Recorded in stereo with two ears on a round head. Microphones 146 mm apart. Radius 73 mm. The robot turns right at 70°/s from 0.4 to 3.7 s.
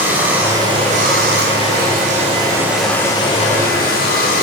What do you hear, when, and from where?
0.0 s running water: 170° right, 3.5 m; by 4.4 s 65° left, 3.5 m